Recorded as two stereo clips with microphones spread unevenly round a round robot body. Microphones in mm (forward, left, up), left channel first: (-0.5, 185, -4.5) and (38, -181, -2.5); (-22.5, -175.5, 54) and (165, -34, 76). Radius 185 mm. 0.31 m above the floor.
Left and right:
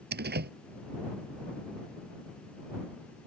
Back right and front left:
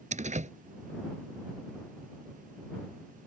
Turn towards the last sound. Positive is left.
turn(degrees=-20)